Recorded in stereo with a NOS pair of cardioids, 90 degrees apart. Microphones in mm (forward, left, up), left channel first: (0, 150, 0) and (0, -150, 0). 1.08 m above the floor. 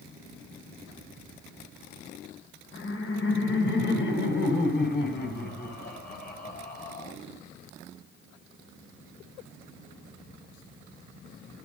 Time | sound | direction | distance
2.7 | laughter | 45° left | 4.5 m